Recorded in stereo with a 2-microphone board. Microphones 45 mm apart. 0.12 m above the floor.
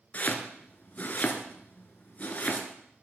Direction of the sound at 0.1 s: 40° left (ahead or behind).